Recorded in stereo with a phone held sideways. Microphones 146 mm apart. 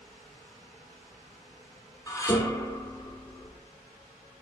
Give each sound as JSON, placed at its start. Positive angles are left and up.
{"t": 2.1, "sound": "dishes clattering", "side_deg": 25, "distance_m": 1.7}